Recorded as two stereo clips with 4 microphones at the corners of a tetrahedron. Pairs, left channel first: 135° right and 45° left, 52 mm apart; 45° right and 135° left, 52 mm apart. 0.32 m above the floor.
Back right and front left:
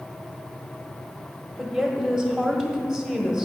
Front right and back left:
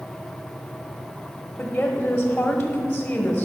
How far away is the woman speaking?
About 1.3 m.